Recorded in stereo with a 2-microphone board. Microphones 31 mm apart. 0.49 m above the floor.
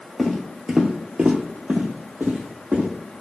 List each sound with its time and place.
0.2 s footsteps: centre (ahead or behind), 0.7 m; by 2.9 s 70° right (ahead or behind), 1.3 m